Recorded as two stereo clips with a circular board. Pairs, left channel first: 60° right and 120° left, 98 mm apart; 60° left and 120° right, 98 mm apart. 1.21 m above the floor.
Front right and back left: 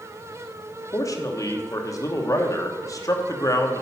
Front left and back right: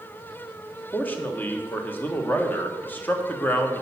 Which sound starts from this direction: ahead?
A man speaking, at 0.9 s.